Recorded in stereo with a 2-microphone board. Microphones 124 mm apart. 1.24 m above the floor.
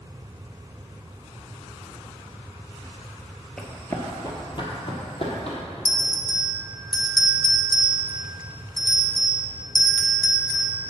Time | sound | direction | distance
3.6 | running footsteps | 5° left (ahead or behind) | 1.2 m
5.8 | a bell | 35° left (ahead or behind) | 0.6 m